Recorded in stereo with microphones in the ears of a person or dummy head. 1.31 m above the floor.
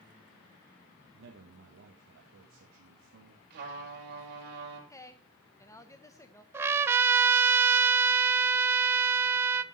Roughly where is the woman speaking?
Centre.